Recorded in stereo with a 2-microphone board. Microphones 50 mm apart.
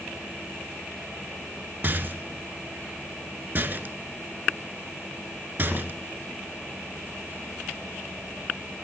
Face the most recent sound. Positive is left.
turn(degrees=-45)  # may be behind; listen again after turning